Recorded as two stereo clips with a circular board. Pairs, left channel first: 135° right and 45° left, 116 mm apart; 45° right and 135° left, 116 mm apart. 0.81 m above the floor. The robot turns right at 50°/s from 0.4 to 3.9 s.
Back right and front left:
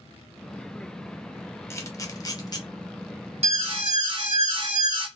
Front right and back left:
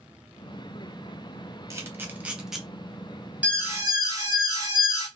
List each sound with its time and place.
1.7 s a camera shutter: straight behind, 0.6 m; by 2.6 s 135° right, 0.6 m
3.4 s an alarm: 60° left, 0.8 m; by 5.1 s 80° left, 0.8 m